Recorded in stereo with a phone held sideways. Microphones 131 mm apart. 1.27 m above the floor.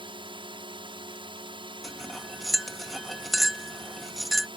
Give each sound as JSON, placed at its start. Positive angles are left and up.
{"t": 0.0, "sound": "a drone", "side_deg": -40}
{"t": 1.8, "sound": "cutlery clinking", "side_deg": 0}